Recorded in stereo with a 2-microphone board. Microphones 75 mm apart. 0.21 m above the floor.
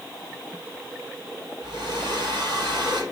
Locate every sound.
1.6 s a hair dryer: 80° right, 4.5 m